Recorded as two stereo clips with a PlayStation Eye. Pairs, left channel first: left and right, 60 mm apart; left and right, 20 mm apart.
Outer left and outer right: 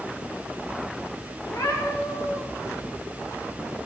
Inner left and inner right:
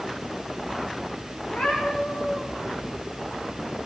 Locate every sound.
1.4 s a cat meowing: 85° left, 7.5 m